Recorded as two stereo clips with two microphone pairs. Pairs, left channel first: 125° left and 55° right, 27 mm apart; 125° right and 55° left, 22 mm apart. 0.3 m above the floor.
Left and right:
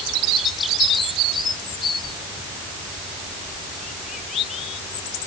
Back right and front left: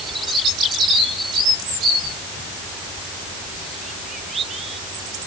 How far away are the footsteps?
No footsteps in this recording.